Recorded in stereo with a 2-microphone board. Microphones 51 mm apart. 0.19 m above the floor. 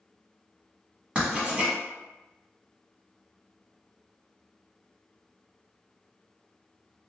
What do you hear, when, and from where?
1.1 s writing: 25° right (ahead or behind), 1.1 m